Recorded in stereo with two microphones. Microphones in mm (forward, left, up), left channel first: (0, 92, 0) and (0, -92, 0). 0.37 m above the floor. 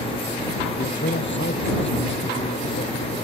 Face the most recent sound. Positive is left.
turn(degrees=85)